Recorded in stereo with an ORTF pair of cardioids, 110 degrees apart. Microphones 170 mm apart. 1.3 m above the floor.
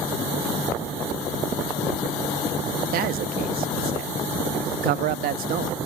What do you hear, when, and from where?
2.9 s a man speaking: 65° right, 0.7 m